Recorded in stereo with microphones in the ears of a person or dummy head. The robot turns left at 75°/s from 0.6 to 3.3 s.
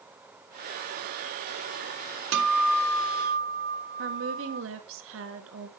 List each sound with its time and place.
2.3 s a guitar: 60° right, 1.0 m; by 4.6 s 130° right, 1.0 m
4.0 s a woman speaking: 65° right (ahead or behind), 1.4 m